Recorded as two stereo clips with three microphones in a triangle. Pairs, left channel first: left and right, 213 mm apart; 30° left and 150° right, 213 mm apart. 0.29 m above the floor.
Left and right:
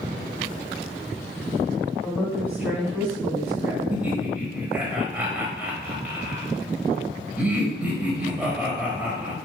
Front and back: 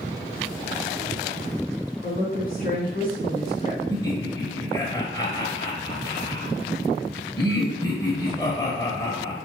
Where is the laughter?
15° right, 1.2 m.